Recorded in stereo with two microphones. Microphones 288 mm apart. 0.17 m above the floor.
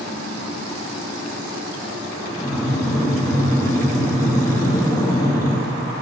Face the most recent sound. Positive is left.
turn(degrees=10)  # may be behind; listen again after turning